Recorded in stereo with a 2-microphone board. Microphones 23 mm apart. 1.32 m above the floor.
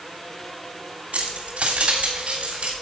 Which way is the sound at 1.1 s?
70° right (ahead or behind).